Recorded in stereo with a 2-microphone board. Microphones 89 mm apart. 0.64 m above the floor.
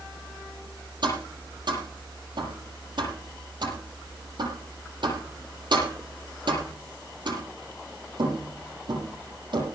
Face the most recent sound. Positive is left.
turn(degrees=-60)  # may be behind; listen again after turning